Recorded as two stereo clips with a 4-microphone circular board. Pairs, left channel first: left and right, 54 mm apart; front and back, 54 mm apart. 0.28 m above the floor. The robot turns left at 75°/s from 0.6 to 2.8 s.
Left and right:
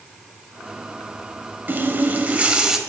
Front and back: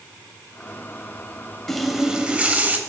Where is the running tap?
80° right, 0.7 m; by 2.8 s 165° right, 0.7 m.